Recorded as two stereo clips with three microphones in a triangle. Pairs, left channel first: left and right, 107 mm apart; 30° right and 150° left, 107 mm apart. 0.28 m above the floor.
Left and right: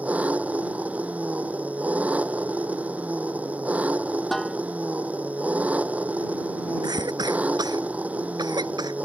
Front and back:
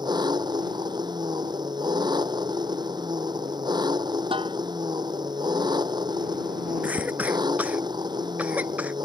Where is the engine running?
165° right.